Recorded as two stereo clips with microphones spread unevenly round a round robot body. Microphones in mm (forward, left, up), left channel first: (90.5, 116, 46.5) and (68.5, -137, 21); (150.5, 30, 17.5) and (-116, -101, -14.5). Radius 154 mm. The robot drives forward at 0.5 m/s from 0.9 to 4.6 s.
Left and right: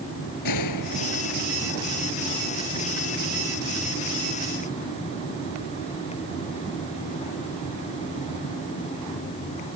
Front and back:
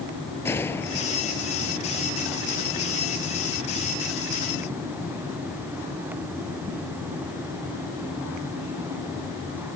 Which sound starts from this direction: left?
A gunshot, at 0.5 s.